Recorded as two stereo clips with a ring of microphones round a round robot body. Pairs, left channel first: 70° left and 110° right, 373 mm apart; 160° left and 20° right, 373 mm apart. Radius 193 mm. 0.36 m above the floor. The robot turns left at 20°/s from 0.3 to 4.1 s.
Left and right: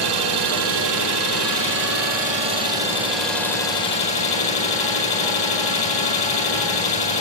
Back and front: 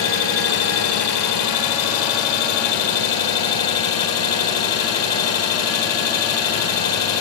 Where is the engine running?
145° right, 9 m; by 7.2 s 140° left, 9 m.